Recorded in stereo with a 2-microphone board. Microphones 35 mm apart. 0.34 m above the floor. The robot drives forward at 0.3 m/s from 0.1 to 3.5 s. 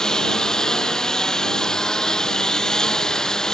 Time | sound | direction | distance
0.0 | a lawn mower | 20° left (ahead or behind) | ?